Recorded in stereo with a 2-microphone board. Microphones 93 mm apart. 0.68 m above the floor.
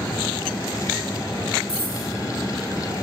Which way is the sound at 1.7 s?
75° left (ahead or behind).